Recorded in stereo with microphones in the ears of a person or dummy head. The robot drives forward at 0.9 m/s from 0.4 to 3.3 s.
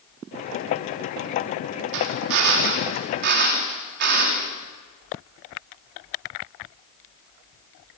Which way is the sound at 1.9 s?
75° right (ahead or behind).